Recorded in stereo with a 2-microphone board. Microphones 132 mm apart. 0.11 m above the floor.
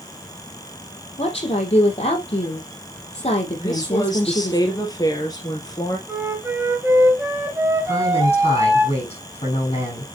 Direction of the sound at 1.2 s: 50° left (ahead or behind).